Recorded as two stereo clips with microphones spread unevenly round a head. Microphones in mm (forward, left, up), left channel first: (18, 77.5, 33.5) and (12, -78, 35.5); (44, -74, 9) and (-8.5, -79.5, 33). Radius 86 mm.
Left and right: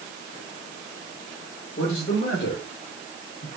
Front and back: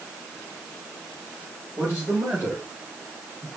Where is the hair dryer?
No hair dryer in this recording.